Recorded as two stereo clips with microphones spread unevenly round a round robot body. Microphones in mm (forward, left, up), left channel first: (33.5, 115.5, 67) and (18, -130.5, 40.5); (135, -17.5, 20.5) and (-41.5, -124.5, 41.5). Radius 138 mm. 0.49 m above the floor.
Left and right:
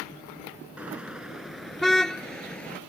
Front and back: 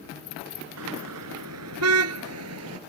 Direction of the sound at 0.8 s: Straight behind.